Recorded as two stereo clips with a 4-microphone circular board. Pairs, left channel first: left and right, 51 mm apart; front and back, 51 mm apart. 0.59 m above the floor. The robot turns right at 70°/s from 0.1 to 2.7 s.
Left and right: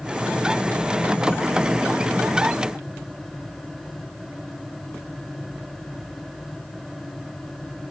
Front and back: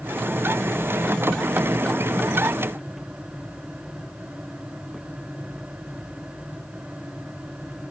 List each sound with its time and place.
Only background noise.